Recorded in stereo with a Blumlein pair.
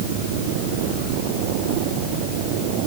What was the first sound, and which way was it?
Only background noise.